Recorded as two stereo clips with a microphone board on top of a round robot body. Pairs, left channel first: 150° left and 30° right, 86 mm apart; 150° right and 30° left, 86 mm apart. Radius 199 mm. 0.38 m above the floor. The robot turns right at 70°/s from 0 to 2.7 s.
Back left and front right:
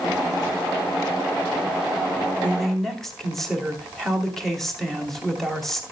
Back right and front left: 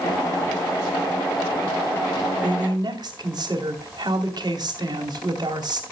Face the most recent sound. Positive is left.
turn(degrees=65)